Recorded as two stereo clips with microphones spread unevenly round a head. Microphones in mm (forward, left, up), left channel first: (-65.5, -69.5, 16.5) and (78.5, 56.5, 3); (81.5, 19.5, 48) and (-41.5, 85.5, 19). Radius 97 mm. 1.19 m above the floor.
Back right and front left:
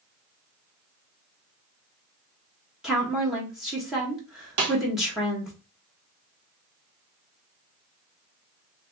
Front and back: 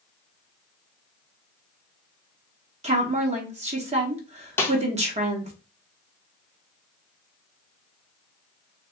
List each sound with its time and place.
2.8 s a woman speaking: 125° left, 1.2 m
4.6 s a snare drum: 45° left, 1.3 m